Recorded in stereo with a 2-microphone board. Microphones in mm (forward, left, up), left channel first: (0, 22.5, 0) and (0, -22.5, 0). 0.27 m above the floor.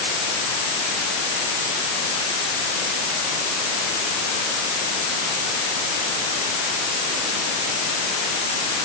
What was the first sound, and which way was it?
Only background noise.